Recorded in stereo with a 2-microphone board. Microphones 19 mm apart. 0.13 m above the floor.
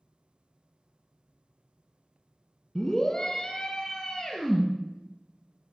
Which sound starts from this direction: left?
A scream, at 2.8 s.